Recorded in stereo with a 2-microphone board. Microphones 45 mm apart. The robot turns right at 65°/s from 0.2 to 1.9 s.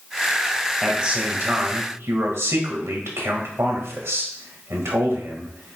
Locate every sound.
0.8 s a man speaking: 170° right, 2.0 m; by 5.8 s 100° right, 2.0 m